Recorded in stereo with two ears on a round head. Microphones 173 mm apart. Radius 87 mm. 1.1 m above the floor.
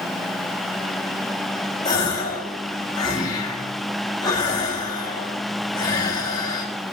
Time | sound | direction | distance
1.9 | a gasp | 20° left (ahead or behind) | 1.5 m